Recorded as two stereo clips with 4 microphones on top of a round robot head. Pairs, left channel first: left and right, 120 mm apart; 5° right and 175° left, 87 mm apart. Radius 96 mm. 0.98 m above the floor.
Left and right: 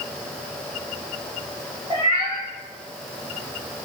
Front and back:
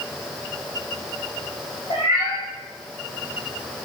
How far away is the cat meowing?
About 1.1 m.